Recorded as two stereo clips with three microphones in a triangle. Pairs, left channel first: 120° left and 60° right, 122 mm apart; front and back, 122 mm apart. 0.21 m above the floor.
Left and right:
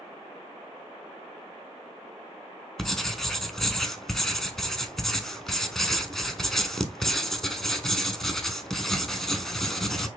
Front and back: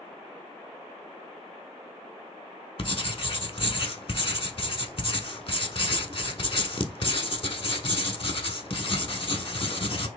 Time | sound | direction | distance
2.8 | writing | 35° left | 0.5 m